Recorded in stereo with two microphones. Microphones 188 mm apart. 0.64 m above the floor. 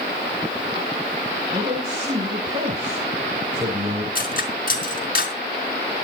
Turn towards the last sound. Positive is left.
turn(degrees=50)  # may be behind; listen again after turning